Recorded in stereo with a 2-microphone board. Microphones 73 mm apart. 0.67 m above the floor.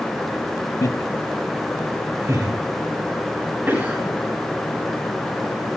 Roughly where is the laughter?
Left.